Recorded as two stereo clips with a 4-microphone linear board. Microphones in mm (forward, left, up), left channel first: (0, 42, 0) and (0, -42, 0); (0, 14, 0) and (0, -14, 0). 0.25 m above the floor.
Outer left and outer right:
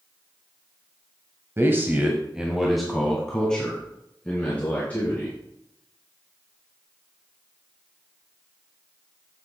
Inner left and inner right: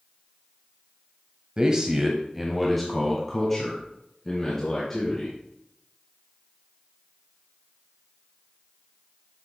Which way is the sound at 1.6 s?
30° right (ahead or behind).